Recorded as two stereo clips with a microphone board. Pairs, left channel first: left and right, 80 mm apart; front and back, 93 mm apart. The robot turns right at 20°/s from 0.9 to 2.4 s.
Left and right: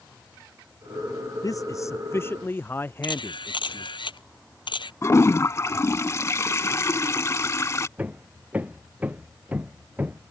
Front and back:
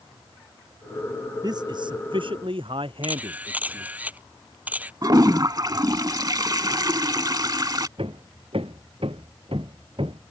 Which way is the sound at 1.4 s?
135° left.